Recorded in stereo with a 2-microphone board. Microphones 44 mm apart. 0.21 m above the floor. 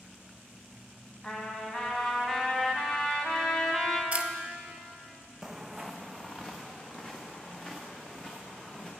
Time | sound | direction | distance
1.2 | a trumpet | 15° left (ahead or behind) | 1.2 m
4.1 | a camera shutter | 30° right (ahead or behind) | 0.6 m
5.4 | footsteps | 10° right (ahead or behind) | 0.6 m